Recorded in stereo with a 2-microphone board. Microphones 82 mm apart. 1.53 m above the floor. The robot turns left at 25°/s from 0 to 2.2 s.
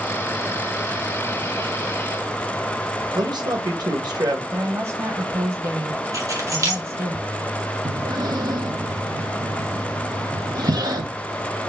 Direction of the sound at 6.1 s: 40° right (ahead or behind).